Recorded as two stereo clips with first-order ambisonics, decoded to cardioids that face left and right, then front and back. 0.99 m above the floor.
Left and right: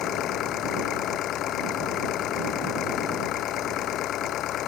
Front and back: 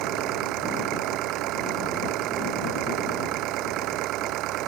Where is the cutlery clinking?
No cutlery clinking in this recording.